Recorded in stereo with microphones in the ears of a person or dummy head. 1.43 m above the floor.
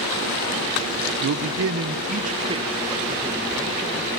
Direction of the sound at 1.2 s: 75° right (ahead or behind).